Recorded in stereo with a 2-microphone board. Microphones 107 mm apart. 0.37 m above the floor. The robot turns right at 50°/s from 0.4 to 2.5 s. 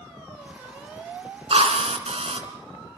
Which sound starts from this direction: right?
A drill, at 1.5 s.